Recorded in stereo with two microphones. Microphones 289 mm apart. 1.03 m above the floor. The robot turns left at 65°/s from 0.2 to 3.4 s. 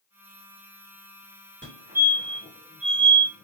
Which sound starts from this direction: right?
A fire alarm, at 1.6 s.